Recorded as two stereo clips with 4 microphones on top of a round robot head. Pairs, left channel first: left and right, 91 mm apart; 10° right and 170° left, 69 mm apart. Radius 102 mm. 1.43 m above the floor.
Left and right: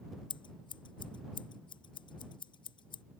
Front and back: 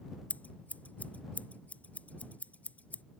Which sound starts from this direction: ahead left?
Scissors, at 0.3 s.